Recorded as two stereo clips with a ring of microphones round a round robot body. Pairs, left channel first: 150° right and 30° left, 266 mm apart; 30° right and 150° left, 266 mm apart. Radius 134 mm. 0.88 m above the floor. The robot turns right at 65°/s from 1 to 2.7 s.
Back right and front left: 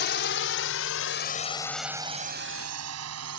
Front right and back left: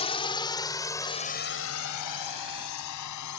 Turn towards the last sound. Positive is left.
turn(degrees=-5)